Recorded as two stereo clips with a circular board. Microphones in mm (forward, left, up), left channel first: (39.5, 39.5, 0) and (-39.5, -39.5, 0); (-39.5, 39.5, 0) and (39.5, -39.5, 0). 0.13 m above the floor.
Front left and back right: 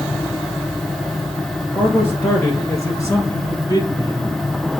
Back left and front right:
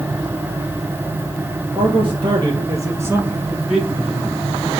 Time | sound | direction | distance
1.8 | a man speaking | 25° right | 2 m